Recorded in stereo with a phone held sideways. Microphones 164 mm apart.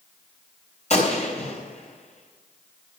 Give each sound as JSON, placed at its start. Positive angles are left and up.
{"t": 0.9, "sound": "a gunshot", "side_deg": 45, "distance_m": 3.0}